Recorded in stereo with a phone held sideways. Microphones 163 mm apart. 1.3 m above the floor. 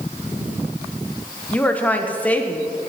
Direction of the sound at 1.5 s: 10° left (ahead or behind).